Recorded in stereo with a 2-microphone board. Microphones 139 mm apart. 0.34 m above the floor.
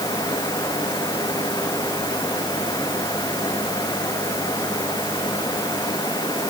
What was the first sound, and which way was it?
Only background noise.